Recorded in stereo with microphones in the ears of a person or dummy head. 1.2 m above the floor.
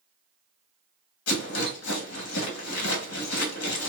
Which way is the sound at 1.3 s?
80° left.